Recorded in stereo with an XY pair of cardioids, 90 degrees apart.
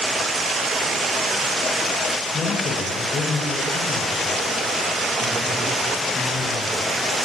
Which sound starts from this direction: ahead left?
A man speaking, at 2.3 s.